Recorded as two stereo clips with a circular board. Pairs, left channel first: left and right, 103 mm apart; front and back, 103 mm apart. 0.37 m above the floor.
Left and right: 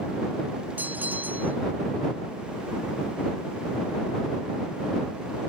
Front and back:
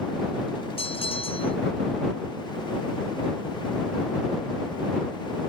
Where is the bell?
20° right.